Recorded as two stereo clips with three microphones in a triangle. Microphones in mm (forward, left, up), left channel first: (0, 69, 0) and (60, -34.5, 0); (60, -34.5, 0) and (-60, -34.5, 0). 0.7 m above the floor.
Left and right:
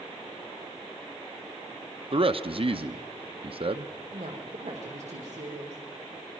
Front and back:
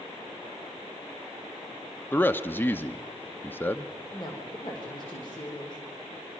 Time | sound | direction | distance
2.1 | a man speaking | 70° right | 0.7 m
4.1 | a woman speaking | 50° right | 1.8 m